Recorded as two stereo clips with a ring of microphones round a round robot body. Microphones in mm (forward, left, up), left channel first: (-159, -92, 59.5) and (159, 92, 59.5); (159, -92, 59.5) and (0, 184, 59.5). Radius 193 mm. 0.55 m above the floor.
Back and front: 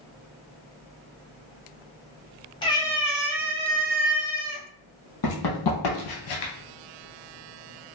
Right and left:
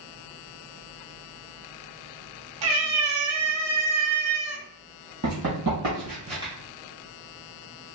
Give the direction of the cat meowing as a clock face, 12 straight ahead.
8 o'clock.